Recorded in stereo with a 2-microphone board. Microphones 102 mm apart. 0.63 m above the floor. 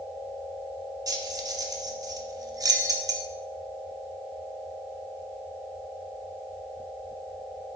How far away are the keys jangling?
About 0.7 m.